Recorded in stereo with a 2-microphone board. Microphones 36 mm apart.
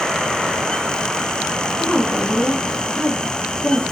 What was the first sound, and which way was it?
A woman speaking, 50° left (ahead or behind).